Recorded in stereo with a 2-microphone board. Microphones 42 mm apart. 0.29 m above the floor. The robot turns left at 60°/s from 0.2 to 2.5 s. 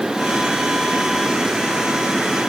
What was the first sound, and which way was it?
Only background noise.